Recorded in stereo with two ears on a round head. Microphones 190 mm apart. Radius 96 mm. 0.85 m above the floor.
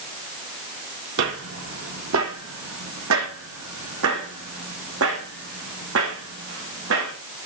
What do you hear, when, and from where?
1.2 s footsteps: 60° right (ahead or behind), 1.8 m; by 7.1 s 70° right (ahead or behind), 6 m